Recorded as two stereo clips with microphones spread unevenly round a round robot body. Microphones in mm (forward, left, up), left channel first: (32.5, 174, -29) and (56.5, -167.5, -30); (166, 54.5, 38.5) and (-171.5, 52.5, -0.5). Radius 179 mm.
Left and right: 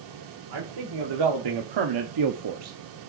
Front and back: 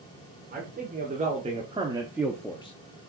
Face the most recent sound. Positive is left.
turn(degrees=-25)